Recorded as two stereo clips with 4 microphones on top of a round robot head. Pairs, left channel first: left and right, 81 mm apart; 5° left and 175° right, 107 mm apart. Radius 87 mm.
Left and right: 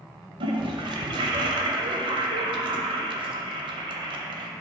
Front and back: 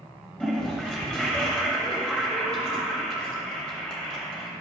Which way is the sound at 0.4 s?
80° right.